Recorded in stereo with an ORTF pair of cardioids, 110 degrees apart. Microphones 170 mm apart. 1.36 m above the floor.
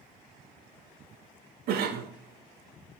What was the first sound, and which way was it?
A cough, 65° right.